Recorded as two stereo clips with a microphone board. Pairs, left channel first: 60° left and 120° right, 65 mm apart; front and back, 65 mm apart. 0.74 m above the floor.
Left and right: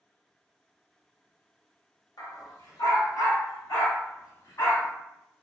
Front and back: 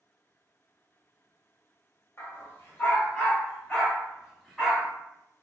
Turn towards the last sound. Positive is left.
turn(degrees=90)